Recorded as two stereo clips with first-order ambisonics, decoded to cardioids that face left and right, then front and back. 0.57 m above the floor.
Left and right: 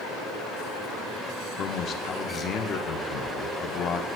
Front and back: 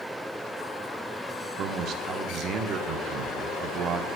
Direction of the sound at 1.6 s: 140° left.